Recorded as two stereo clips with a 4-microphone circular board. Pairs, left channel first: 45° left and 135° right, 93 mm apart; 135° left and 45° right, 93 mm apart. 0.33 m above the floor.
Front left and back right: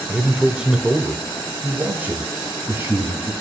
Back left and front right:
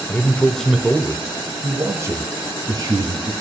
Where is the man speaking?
145° left, 1.3 m; by 3.3 s 75° right, 2.5 m.